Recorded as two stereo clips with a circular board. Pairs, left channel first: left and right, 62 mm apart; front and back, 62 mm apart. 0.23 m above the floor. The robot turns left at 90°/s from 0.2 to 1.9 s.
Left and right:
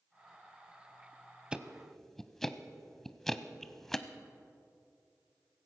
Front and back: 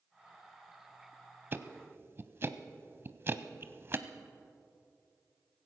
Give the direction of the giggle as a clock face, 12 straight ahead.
No giggle in this recording.